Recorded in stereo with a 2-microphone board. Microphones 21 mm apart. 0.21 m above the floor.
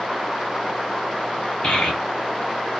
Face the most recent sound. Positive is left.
turn(degrees=50)  # may be behind; listen again after turning